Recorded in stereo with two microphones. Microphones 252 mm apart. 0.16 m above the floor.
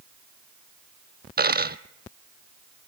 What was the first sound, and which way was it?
A dropped coin, 40° right (ahead or behind).